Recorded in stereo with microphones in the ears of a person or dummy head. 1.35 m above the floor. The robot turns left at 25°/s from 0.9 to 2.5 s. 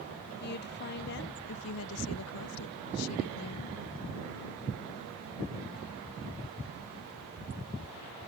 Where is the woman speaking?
130° left; by 3.8 s 90° left.